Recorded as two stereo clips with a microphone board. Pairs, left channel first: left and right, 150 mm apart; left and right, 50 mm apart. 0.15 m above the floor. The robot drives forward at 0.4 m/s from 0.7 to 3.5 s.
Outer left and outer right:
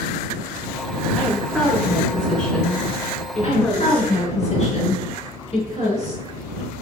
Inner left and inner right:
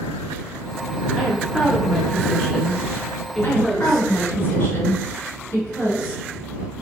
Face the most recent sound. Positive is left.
turn(degrees=40)  # may be behind; listen again after turning